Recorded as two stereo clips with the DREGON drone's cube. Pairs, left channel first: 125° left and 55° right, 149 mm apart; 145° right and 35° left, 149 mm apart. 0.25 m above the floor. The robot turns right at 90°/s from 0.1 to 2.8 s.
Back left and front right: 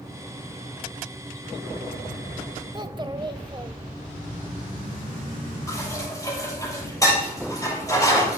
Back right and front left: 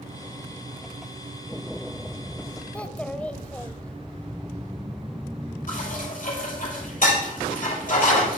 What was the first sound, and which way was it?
A child speaking, 75° right.